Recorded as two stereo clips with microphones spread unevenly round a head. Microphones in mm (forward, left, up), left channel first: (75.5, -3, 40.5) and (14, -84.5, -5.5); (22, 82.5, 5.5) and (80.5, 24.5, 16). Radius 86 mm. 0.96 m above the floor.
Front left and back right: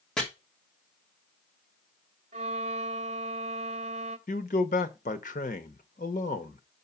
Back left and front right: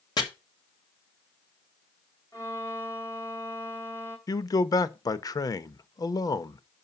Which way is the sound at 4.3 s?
95° left.